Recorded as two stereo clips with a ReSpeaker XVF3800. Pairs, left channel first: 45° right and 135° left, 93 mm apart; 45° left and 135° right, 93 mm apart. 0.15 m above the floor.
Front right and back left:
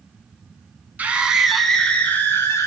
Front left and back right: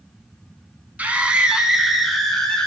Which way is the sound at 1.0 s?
175° left.